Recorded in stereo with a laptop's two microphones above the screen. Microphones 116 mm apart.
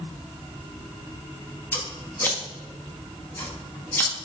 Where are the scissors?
15° left (ahead or behind), 1.5 m.